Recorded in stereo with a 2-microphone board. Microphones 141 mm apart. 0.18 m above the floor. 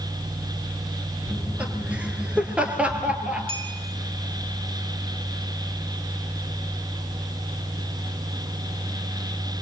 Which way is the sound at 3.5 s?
40° right (ahead or behind).